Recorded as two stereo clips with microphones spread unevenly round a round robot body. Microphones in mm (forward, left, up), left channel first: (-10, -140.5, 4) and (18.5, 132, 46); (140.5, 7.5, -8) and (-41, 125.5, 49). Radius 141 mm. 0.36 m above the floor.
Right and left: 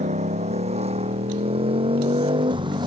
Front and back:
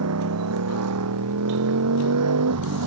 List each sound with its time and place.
0.0 s a motorcycle: 150° left; by 2.9 s 160° left